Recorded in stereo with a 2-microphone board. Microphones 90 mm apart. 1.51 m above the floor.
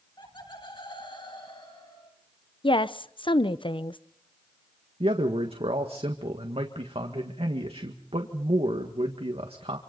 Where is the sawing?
No sawing in this recording.